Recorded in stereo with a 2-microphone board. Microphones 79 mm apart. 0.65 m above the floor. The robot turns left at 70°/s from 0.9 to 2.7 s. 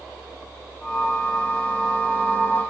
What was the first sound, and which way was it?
Only background noise.